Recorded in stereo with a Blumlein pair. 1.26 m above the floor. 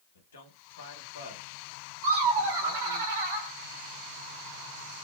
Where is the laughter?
50° right, 0.9 m.